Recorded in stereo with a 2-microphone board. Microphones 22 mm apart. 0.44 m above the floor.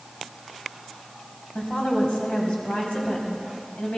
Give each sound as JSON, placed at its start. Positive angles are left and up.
{"t": 1.6, "sound": "a woman speaking", "side_deg": 60, "distance_m": 3.0}